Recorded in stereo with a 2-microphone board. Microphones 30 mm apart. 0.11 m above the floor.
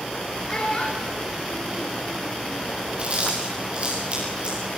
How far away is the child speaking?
About 3 m.